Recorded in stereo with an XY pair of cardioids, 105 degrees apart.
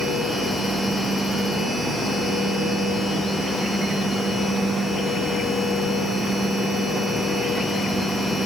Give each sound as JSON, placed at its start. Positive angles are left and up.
{"t": 0.0, "sound": "a machine running", "azimuth_deg": 25, "distance_m": 1.9}